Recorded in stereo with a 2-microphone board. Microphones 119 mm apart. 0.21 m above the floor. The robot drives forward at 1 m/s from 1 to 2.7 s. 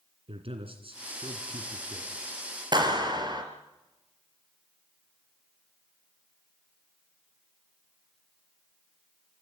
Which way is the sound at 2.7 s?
40° right (ahead or behind).